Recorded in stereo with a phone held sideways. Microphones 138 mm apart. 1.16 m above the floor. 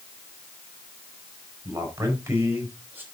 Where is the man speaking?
20° right (ahead or behind), 4.5 m; by 3.0 s 15° right (ahead or behind), 4.5 m.